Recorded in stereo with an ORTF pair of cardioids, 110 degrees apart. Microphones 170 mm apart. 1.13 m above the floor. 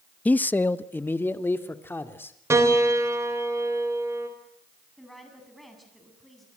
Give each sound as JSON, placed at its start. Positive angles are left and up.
{"t": 0.2, "sound": "a man speaking", "azimuth_deg": 10, "distance_m": 0.6}
{"t": 2.5, "sound": "a piano", "azimuth_deg": -15, "distance_m": 4.5}
{"t": 5.0, "sound": "a woman speaking", "azimuth_deg": 0, "distance_m": 8.0}